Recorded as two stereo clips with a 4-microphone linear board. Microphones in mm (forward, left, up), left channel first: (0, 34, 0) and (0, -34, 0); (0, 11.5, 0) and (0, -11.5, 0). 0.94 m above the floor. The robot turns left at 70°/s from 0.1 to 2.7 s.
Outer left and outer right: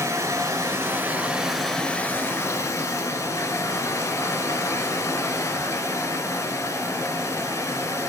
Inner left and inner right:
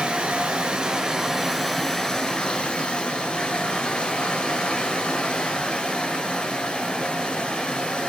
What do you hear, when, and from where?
0.0 s running water: 80° right, 1.2 m; by 8.1 s 95° left, 1.2 m